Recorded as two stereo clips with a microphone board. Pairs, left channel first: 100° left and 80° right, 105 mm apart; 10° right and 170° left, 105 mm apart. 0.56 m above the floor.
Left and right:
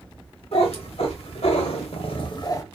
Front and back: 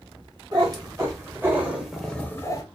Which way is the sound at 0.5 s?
120° left.